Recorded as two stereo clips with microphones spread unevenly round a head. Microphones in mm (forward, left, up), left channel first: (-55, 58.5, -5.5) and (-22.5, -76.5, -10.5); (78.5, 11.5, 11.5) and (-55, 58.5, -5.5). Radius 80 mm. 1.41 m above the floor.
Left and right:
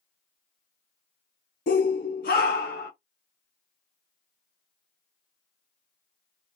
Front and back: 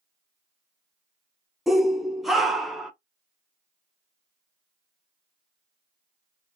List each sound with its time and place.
1.7 s a shout: 70° left, 0.9 m